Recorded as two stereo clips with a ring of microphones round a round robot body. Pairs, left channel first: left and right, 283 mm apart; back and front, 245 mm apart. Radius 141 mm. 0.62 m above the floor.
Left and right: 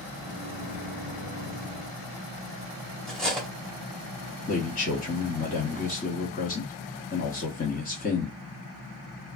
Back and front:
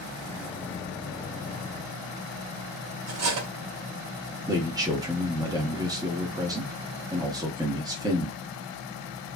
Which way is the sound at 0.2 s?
105° left.